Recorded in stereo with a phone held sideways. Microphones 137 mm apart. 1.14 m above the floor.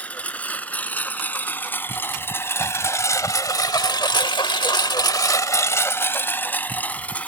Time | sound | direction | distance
0.0 | a lawn mower | 10° left (ahead or behind) | ?